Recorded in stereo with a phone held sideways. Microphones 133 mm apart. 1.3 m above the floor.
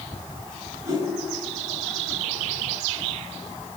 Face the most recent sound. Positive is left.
turn(degrees=-30)  # may be behind; listen again after turning